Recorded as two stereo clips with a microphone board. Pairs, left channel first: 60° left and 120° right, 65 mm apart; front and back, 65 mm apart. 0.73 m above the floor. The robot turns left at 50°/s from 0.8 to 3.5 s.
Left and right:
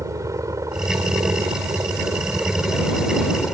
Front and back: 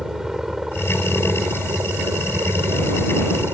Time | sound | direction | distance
0.0 | a helicopter | 95° right | ?